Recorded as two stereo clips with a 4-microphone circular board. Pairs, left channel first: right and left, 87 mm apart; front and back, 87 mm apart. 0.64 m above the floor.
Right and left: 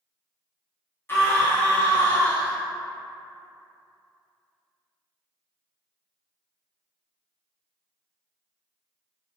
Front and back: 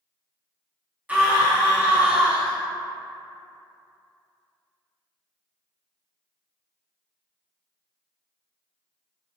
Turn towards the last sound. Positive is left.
turn(degrees=-120)